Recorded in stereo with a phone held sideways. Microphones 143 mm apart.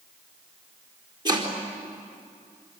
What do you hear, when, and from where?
1.2 s chopping: 30° right (ahead or behind), 4 m